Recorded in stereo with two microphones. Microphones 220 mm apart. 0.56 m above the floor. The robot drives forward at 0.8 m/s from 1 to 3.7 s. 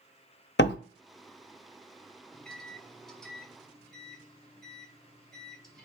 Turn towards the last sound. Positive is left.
turn(degrees=0)  # may be behind; listen again after turning